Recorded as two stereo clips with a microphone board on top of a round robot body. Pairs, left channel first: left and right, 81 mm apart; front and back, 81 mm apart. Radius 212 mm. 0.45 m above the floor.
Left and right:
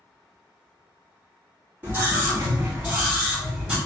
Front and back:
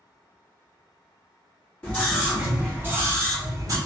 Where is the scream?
55° right, 1.5 m; by 3.8 s 170° right, 2.0 m.